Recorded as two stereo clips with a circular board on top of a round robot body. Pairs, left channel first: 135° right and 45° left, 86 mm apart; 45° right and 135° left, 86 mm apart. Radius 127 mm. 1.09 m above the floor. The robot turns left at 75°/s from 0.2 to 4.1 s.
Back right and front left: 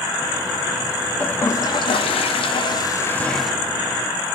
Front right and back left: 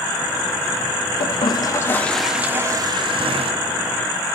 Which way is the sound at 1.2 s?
60° right.